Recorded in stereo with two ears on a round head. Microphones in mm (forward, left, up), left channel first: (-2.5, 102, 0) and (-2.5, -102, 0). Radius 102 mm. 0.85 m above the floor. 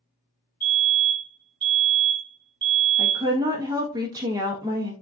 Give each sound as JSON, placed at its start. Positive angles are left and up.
{"t": 0.6, "sound": "a fire alarm", "side_deg": -20, "distance_m": 1.4}
{"t": 3.0, "sound": "a woman speaking", "side_deg": -15, "distance_m": 1.0}